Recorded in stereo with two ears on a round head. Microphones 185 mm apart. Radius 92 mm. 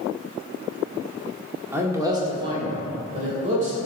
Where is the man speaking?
10° right (ahead or behind), 1.5 m; by 3.8 s 40° right (ahead or behind), 3 m.